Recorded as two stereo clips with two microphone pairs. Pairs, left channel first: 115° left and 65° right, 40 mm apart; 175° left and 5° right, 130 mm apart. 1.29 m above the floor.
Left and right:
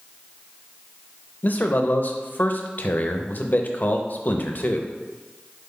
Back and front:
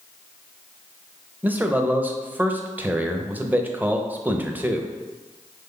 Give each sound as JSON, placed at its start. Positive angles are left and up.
{"t": 1.4, "sound": "a man speaking", "azimuth_deg": 75, "distance_m": 0.5}